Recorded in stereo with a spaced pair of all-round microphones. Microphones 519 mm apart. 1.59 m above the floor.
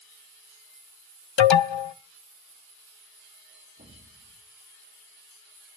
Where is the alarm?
60° left (ahead or behind), 0.5 m.